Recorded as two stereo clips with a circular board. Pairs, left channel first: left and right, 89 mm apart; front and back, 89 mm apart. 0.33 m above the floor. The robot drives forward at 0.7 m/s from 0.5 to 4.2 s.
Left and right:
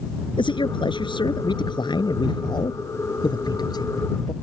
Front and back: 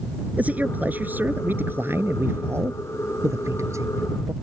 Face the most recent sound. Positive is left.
turn(degrees=130)